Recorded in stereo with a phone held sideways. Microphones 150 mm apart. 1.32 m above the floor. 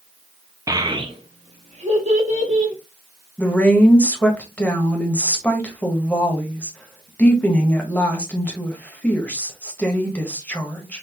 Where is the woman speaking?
10° left (ahead or behind), 1.4 m.